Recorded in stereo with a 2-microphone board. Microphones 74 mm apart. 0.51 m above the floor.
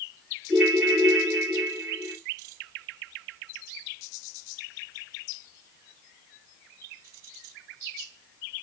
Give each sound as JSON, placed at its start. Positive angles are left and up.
{"t": 0.5, "sound": "a ringtone", "side_deg": -5, "distance_m": 2.5}